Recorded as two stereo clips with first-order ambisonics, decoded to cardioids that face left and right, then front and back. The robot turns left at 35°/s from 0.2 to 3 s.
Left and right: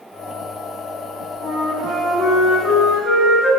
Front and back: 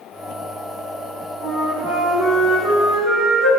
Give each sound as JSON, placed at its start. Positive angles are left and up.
{"t": 1.4, "sound": "a flute", "azimuth_deg": 150, "distance_m": 1.5}